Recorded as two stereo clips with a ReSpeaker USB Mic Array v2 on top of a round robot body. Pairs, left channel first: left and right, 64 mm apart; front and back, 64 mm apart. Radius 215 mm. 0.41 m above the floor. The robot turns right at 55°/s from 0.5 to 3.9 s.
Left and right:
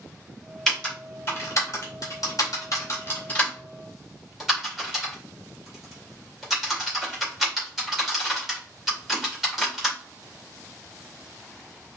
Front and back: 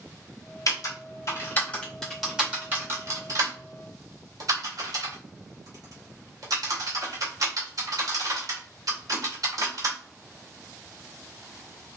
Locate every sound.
0.7 s typing on a keyboard: 10° left, 2.5 m; by 10.0 s 175° right, 2.5 m